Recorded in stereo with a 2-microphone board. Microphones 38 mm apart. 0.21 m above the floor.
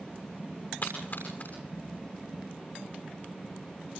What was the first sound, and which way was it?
A splash, 50° left (ahead or behind).